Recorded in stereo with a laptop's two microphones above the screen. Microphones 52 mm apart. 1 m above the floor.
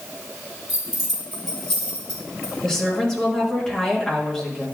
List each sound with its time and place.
0.7 s keys jangling: 10° right (ahead or behind), 4.5 m; by 2.5 s 30° left (ahead or behind), 3 m
2.6 s a woman speaking: 15° left (ahead or behind), 1.7 m